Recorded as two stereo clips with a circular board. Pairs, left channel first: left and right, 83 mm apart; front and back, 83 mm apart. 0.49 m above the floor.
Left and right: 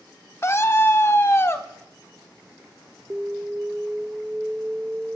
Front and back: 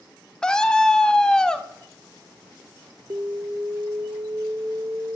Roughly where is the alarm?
Behind.